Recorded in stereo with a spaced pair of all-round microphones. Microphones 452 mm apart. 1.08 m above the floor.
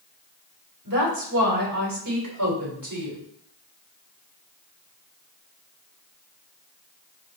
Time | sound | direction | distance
0.8 | a woman speaking | 45° right (ahead or behind) | 4.5 m